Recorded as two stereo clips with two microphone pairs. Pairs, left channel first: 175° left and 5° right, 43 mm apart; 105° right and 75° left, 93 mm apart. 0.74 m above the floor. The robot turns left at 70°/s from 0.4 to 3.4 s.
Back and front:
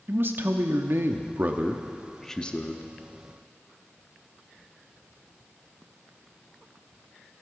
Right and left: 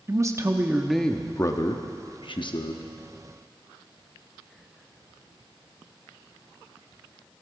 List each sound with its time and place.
0.1 s a man speaking: 20° left, 0.8 m; by 2.8 s 150° right, 0.8 m